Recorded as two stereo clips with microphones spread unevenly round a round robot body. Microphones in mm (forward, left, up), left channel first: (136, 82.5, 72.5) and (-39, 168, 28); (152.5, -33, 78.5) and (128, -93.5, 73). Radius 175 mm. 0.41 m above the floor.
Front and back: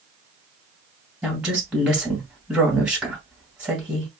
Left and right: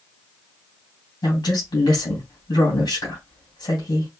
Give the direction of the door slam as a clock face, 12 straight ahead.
I don't hear a door slam.